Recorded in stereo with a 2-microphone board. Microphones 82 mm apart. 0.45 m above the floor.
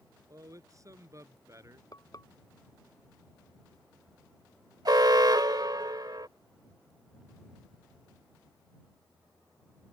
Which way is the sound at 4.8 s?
55° right (ahead or behind).